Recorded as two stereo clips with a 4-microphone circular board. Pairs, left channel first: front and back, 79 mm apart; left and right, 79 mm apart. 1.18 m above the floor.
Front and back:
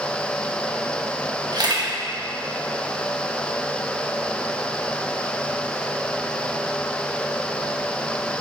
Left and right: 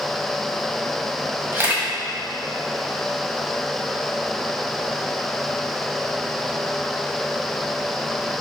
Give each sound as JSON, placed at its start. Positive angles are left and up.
{"t": 1.5, "sound": "a camera shutter", "azimuth_deg": -155, "distance_m": 1.7}